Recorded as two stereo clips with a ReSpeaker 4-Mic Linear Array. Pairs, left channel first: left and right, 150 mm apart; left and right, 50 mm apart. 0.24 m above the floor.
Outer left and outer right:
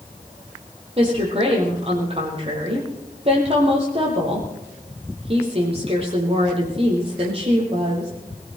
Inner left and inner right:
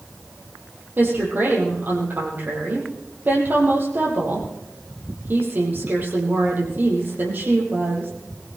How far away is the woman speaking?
About 6.5 m.